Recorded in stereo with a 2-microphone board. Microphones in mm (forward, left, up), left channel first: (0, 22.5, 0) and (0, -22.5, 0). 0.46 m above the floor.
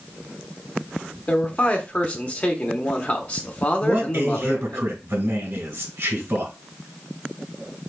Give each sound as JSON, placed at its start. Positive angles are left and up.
{"t": 1.3, "sound": "a man speaking", "side_deg": 35, "distance_m": 0.9}
{"t": 3.8, "sound": "a man speaking", "side_deg": -65, "distance_m": 2.0}